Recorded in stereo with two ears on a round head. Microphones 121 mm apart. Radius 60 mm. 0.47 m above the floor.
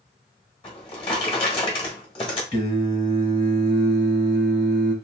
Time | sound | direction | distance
0.6 | a drawer | 45° left (ahead or behind) | 1.3 m
2.5 | singing | 40° left (ahead or behind) | 1.4 m